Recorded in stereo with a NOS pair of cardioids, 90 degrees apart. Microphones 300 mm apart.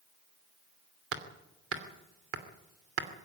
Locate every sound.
1.1 s hammering: 50° right, 2.5 m